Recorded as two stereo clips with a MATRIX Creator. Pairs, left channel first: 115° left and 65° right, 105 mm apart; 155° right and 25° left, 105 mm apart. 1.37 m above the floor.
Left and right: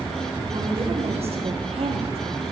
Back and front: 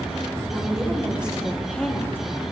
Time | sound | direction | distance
0.5 | a woman speaking | 40° right | 1.4 m